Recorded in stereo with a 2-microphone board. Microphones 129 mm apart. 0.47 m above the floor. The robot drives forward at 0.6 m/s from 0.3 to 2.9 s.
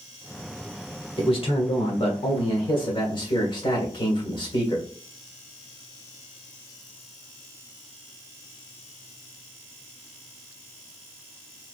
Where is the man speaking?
45° left (ahead or behind), 1.2 m; by 4.8 s 40° left (ahead or behind), 1.4 m.